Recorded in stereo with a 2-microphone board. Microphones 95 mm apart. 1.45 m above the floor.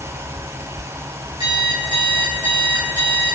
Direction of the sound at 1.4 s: 55° right (ahead or behind).